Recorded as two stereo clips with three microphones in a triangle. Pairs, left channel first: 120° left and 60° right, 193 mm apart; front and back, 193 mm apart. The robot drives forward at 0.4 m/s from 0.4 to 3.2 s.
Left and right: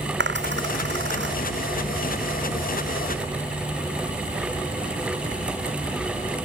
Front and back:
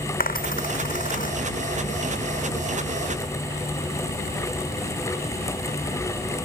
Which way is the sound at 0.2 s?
40° right.